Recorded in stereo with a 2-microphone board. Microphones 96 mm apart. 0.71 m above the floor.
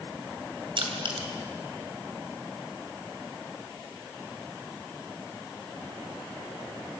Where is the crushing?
60° right (ahead or behind), 2.5 m.